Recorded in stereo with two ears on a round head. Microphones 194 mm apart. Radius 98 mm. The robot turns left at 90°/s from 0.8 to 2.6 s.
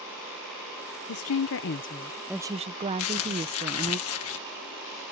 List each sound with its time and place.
1.1 s a woman speaking: 105° left; by 4.0 s 30° right
3.0 s crumpling: 70° left (ahead or behind)